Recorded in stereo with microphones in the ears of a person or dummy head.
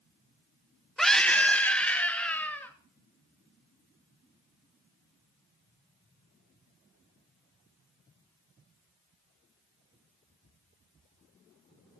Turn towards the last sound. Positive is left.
turn(degrees=5)  # may be behind; listen again after turning